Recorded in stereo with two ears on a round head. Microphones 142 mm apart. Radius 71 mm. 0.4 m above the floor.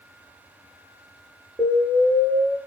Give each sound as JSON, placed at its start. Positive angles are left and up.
{"t": 1.6, "sound": "an explosion", "side_deg": -15, "distance_m": 2.0}